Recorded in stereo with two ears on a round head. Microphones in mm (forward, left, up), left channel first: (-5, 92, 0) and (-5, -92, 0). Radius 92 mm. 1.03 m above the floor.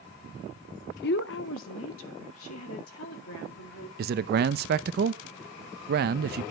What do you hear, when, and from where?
1.0 s a woman speaking: 50° left (ahead or behind), 0.6 m; by 3.9 s 80° left, 3.5 m
4.0 s a man speaking: 50° right (ahead or behind), 0.6 m